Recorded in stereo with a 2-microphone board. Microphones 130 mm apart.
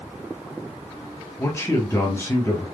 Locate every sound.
1.4 s a man speaking: 20° left (ahead or behind), 1.4 m